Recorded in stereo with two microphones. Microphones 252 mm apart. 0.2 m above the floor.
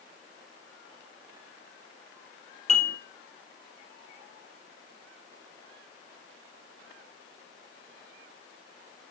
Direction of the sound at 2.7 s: 25° left (ahead or behind).